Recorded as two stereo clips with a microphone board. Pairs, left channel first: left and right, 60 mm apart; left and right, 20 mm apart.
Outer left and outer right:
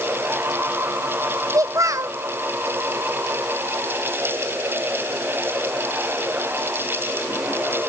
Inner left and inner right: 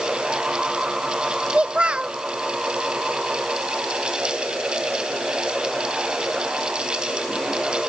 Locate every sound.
1.5 s a child speaking: 65° right (ahead or behind), 0.7 m